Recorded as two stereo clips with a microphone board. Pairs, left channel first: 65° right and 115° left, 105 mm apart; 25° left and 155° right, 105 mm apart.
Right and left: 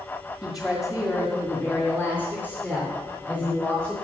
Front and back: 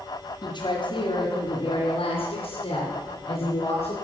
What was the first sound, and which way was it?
A woman speaking, 25° left.